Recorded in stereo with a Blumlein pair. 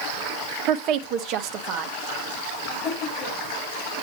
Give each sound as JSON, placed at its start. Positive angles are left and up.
{"t": 0.7, "sound": "a woman speaking", "azimuth_deg": -40, "distance_m": 1.0}
{"t": 2.7, "sound": "laughter", "azimuth_deg": 30, "distance_m": 6.0}